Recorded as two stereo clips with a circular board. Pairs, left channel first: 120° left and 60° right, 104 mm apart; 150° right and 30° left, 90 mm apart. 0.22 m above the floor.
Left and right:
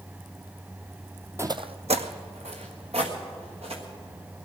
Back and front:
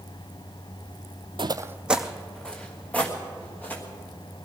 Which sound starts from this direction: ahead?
Footsteps, at 1.4 s.